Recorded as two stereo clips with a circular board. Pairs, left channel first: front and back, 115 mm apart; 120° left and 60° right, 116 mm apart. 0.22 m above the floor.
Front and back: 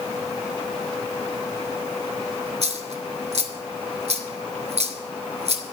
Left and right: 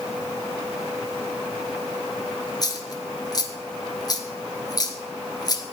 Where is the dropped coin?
175° left, 1.7 m.